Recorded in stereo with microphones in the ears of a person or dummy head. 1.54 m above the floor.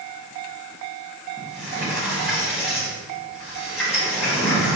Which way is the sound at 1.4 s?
5° right (ahead or behind).